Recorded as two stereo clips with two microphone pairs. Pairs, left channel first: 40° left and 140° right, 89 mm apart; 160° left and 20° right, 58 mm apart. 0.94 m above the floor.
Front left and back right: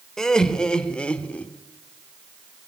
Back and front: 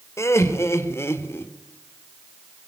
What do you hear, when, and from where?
0.2 s laughter: 125° left, 3.5 m; by 1.5 s 115° left, 2.5 m